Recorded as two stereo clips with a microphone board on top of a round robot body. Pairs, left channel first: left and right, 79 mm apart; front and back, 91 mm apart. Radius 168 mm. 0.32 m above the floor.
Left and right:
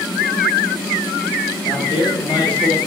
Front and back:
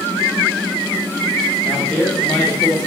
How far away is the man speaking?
About 2.0 m.